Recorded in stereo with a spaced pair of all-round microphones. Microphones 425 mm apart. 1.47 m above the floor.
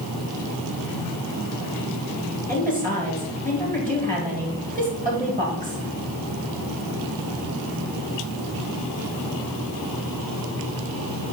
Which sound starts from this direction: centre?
A woman speaking, at 2.5 s.